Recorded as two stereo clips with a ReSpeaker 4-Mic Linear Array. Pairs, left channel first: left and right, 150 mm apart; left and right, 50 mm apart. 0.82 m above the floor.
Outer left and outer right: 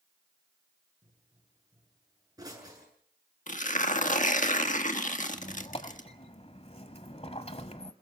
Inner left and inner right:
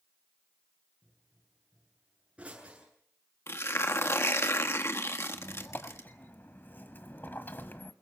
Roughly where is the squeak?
Left.